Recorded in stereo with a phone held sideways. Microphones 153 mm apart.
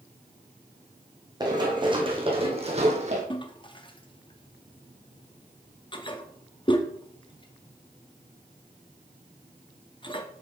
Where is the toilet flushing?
35° left (ahead or behind), 0.6 m.